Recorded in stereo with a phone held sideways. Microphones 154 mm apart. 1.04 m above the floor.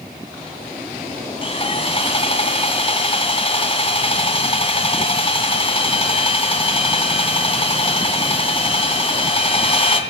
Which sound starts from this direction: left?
Sawing, at 1.4 s.